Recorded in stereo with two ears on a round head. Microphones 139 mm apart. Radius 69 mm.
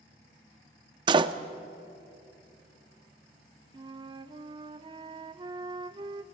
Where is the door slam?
30° right (ahead or behind), 0.6 m.